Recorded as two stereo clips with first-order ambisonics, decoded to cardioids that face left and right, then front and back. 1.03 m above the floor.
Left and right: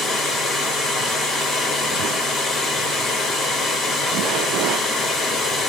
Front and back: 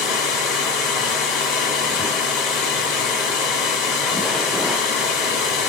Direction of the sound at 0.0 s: 5° left.